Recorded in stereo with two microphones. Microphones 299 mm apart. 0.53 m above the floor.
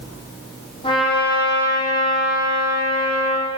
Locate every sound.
0.8 s a trumpet: 15° left (ahead or behind), 7.5 m